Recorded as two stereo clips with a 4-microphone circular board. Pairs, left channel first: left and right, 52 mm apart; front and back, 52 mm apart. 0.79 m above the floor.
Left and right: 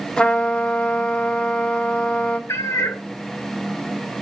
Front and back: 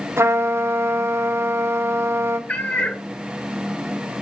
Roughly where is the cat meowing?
Ahead left.